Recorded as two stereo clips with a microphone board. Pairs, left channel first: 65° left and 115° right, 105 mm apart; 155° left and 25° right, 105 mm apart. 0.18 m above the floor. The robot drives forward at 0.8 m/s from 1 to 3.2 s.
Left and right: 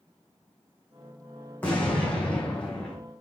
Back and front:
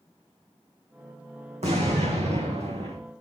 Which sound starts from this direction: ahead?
An explosion, at 1.6 s.